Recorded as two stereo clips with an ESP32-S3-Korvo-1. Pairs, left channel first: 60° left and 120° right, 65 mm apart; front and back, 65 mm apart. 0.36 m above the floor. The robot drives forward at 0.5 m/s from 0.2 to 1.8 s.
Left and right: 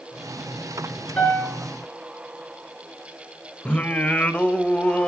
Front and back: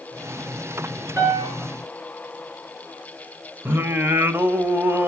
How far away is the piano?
About 6 m.